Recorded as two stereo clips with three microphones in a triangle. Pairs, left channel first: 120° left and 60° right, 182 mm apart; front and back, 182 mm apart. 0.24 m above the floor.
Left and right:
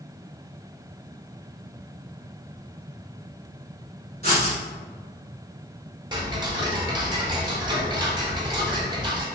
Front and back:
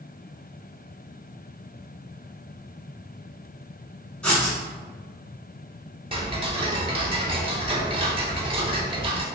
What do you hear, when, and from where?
4.2 s writing: 85° right, 1.1 m
6.1 s ticking: 120° right, 0.5 m